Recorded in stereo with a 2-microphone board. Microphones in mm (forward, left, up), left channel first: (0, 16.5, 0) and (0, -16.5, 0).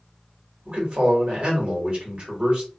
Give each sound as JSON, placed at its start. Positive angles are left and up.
{"t": 0.7, "sound": "a man speaking", "side_deg": -35, "distance_m": 1.5}